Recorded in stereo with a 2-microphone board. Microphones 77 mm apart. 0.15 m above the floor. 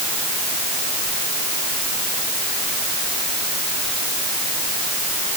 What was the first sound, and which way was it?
Only background noise.